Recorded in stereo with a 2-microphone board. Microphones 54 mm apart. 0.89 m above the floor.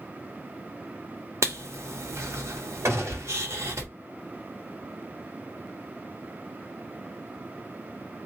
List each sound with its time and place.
1.4 s writing: 75° right (ahead or behind), 1.2 m
2.9 s a gunshot: 70° right (ahead or behind), 1.6 m